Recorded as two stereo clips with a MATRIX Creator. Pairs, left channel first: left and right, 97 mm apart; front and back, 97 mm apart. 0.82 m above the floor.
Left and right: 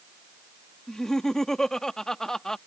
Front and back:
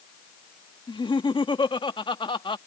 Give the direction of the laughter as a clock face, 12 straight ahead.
12 o'clock.